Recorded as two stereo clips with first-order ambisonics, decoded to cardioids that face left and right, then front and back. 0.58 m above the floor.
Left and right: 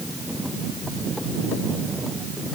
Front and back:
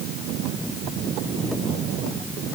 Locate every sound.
Only background noise.